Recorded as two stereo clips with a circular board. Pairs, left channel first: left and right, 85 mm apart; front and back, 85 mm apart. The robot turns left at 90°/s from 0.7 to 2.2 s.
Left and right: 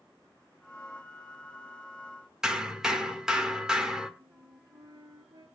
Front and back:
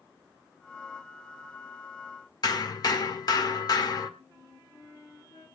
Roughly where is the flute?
Ahead right.